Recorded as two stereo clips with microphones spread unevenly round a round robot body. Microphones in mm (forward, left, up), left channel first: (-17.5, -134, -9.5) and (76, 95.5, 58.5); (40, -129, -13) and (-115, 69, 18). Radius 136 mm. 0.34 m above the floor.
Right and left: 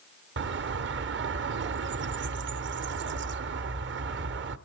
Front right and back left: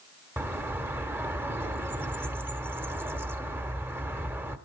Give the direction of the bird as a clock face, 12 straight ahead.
11 o'clock.